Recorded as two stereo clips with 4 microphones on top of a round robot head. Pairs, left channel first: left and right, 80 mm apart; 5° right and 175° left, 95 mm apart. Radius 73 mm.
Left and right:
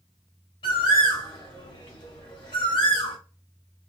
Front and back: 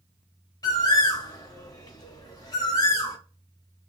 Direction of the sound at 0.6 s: 50° left.